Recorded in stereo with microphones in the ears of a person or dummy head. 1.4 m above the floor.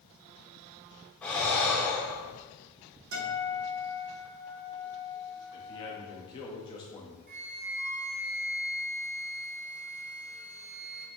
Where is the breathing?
10° left (ahead or behind), 1.4 m.